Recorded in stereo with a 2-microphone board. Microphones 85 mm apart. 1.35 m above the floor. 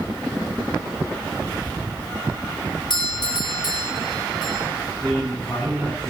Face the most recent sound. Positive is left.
turn(degrees=20)  # may be behind; listen again after turning